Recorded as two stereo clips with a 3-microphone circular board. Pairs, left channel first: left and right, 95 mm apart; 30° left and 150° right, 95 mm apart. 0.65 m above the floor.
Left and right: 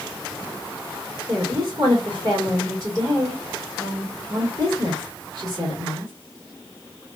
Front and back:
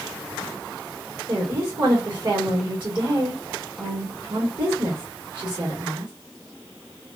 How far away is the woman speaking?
About 1.8 m.